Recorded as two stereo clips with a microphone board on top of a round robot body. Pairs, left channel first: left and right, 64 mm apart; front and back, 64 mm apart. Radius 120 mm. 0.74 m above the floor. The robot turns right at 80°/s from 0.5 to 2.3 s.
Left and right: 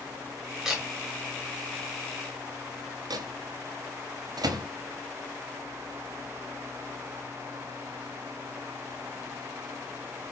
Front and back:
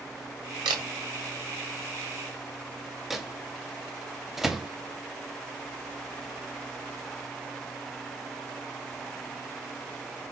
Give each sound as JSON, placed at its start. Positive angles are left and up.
{"t": 0.7, "sound": "a camera shutter", "azimuth_deg": -175, "distance_m": 1.0}
{"t": 3.1, "sound": "a microwave", "azimuth_deg": -95, "distance_m": 0.7}